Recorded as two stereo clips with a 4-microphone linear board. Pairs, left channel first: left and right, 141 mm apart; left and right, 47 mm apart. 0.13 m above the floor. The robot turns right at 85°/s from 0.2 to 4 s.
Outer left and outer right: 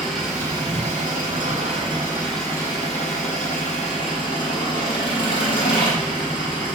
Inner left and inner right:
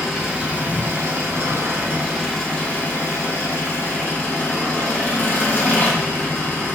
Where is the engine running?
Straight behind, 1.7 m; by 6.8 s 145° left, 1.7 m.